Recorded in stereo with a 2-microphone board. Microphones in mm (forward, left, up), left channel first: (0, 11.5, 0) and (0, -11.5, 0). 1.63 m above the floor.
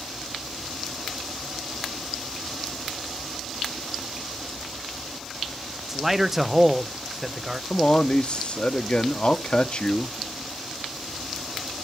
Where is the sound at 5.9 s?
5° right (ahead or behind), 0.7 m.